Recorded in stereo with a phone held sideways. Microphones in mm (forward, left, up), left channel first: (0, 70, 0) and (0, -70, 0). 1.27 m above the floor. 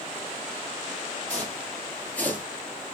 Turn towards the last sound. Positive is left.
turn(degrees=10)  # may be behind; listen again after turning